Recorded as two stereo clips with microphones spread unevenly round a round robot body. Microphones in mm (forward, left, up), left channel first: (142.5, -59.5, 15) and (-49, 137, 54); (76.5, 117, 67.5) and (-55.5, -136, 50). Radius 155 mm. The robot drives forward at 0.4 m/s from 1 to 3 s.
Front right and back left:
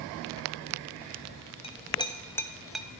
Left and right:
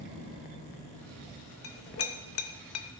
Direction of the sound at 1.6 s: 20° left.